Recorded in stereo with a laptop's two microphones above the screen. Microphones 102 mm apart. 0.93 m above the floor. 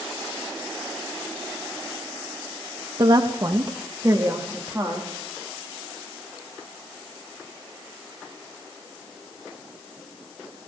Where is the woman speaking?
45° right (ahead or behind), 0.8 m; by 5.1 s 25° right (ahead or behind), 1.8 m.